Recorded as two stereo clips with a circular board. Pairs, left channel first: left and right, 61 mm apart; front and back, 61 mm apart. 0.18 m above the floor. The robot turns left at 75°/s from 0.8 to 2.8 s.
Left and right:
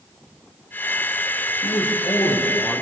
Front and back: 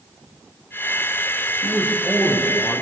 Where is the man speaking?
120° left, 6.5 m; by 2.8 s 30° left, 6.5 m.